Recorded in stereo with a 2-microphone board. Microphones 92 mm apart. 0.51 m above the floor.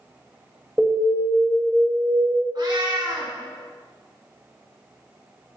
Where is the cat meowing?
50° right (ahead or behind), 2 m.